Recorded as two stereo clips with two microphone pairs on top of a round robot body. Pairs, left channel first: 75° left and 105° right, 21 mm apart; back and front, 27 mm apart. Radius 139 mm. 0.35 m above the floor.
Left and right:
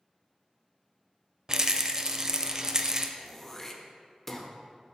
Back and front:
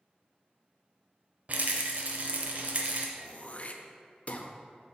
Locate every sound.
1.5 s a rattle: 45° right, 0.6 m
3.2 s throat clearing: 155° left, 0.8 m